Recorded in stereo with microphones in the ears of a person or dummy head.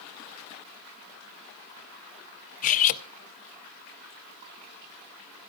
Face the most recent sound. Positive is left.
turn(degrees=45)  # may be behind; listen again after turning